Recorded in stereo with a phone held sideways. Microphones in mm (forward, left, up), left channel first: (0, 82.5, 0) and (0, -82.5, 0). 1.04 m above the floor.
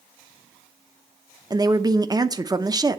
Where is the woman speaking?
25° right (ahead or behind), 0.8 m.